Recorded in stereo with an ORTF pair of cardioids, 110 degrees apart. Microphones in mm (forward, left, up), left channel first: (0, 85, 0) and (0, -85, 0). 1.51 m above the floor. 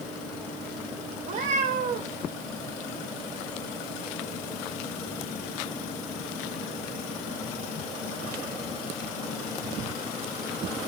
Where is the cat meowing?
60° right, 3 m.